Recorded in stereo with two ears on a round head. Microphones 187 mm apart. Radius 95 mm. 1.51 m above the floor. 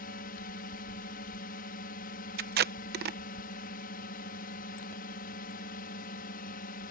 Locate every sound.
0.0 s a drone: 45° left (ahead or behind)
2.4 s tape being pulled: 50° right (ahead or behind)